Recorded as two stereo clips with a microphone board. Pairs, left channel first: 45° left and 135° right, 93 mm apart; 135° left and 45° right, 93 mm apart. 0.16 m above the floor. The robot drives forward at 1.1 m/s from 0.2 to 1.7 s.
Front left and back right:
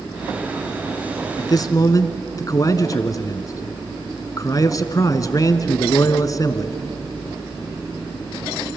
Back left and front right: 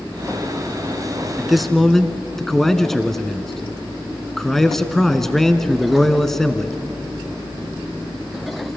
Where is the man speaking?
35° left, 1.5 m; by 6.8 s 50° left, 1.3 m.